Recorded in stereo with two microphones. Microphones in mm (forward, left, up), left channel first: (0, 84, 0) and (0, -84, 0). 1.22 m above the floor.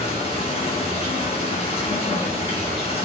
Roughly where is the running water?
Left.